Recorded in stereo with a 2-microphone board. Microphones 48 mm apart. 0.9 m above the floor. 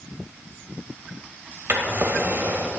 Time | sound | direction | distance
1.7 | a drawer | 45° right (ahead or behind) | 1.2 m